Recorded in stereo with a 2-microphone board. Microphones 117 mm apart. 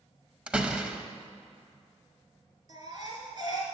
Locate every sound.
0.5 s a door slam: 10° right (ahead or behind), 0.7 m
2.7 s a baby crying: 35° right (ahead or behind), 2.5 m